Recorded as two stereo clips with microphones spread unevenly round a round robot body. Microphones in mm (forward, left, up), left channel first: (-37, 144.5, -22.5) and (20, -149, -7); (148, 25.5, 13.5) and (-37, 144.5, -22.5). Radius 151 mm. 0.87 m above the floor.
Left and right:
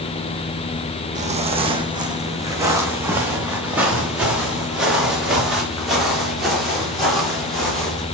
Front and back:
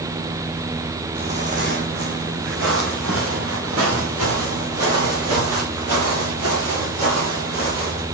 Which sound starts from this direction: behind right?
Footsteps, at 1.1 s.